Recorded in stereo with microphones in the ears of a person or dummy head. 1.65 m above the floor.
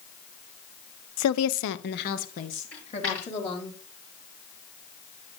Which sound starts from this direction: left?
A woman speaking, at 1.2 s.